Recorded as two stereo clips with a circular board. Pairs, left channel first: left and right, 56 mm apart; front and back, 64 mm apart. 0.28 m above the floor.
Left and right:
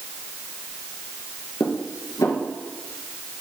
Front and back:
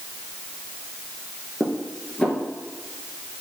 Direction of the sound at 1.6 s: 75° left.